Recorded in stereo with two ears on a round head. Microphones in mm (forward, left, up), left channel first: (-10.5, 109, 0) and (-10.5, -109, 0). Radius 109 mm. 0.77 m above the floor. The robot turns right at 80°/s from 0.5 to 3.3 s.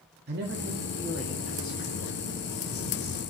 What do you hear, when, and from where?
0.3 s a man speaking: 55° right, 1.6 m; by 3.2 s 165° left, 1.6 m